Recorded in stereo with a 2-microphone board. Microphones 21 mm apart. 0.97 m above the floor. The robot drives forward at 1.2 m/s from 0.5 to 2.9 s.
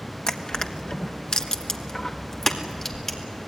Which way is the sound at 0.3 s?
45° left (ahead or behind).